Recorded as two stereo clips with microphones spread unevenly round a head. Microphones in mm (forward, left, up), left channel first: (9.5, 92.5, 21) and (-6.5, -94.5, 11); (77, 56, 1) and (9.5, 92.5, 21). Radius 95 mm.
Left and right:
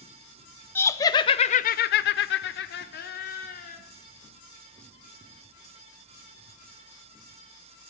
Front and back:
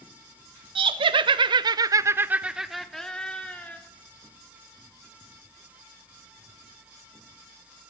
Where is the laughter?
165° left, 0.8 m; by 3.8 s 40° left, 1.1 m.